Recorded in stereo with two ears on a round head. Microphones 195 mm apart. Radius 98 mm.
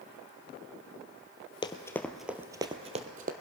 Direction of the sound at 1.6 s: 25° left (ahead or behind).